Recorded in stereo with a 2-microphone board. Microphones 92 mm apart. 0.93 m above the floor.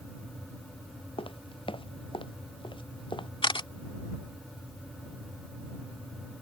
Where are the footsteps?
75° left (ahead or behind); by 3.3 s 65° left (ahead or behind).